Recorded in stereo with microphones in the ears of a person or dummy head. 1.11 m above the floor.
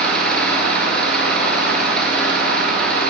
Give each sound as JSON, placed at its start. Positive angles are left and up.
{"t": 0.0, "sound": "an engine running", "side_deg": 5, "distance_m": 5.0}